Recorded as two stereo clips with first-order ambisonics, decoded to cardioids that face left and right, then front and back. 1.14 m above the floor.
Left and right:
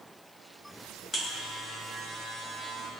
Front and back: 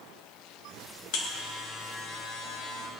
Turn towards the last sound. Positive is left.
turn(degrees=15)